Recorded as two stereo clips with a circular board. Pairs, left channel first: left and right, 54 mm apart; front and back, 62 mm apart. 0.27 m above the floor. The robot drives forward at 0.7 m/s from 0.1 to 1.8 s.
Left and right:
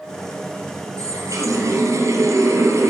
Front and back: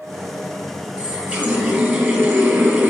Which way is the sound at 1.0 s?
110° right.